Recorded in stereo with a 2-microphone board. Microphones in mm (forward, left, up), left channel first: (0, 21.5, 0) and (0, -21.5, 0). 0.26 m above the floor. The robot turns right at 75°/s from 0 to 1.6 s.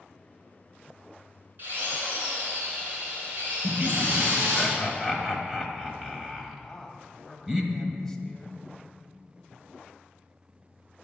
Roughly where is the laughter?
Centre.